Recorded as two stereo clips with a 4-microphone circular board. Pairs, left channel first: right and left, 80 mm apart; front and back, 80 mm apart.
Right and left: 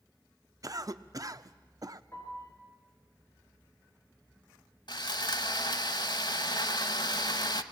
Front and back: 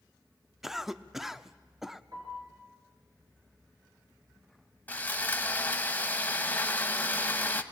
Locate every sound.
0.6 s a cough: 95° left, 0.8 m
2.1 s a piano: 145° right, 7 m
4.9 s sawing: 70° right, 1.0 m